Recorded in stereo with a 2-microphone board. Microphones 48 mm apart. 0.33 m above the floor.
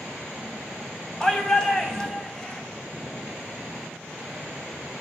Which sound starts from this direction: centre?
A shout, at 1.2 s.